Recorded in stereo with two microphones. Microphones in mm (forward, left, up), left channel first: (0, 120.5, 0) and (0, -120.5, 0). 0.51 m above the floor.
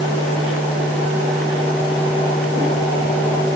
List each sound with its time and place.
Only background noise.